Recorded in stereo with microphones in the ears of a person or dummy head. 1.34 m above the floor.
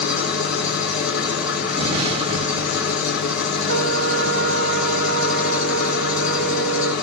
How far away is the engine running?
About 4.5 m.